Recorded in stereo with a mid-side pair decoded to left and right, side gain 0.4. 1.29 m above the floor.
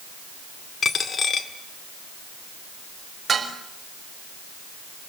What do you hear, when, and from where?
0.8 s a dropped coin: 50° left, 2 m
3.3 s dishes clattering: 40° right, 5 m